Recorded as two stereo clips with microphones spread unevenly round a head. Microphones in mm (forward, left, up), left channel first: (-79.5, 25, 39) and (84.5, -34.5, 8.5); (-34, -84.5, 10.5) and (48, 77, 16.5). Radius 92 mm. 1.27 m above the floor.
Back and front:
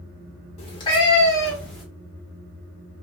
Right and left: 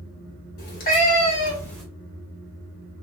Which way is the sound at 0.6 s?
150° right.